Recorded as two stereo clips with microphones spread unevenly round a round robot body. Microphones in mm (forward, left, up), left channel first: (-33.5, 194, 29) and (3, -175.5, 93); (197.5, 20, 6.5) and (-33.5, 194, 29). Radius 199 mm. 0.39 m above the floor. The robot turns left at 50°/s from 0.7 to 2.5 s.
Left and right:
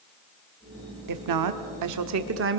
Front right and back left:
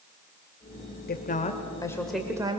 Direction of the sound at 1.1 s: 70° right.